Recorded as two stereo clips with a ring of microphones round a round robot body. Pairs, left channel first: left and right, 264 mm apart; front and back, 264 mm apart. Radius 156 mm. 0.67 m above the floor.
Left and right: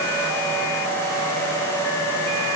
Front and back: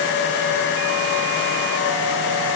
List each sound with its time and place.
Only background noise.